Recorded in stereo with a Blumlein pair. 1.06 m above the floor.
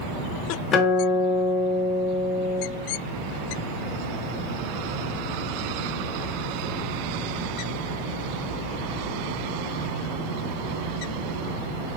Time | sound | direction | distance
0.7 | a guitar | 30° left | 1.1 m